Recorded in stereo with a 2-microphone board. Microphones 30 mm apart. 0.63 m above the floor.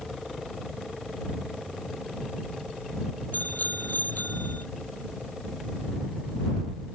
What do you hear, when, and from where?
3.3 s a bicycle bell: 75° left (ahead or behind); by 4.7 s 80° left